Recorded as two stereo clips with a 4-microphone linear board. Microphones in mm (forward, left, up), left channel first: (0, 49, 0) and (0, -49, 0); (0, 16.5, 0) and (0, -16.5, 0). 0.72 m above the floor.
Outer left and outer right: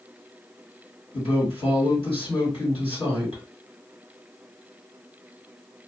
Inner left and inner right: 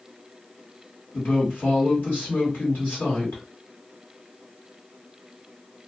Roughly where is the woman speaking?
Left.